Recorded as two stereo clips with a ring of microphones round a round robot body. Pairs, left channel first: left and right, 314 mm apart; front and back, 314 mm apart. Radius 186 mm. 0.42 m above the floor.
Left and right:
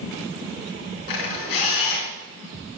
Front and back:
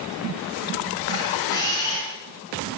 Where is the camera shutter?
80° left, 4.5 m.